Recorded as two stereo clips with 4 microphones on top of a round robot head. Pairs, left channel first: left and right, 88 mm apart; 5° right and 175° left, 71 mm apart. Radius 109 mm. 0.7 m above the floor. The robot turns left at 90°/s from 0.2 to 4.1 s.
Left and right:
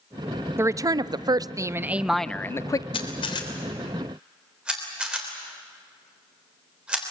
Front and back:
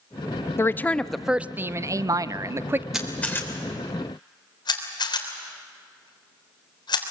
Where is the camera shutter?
95° left, 3.5 m; by 7.0 s 10° right, 3.5 m.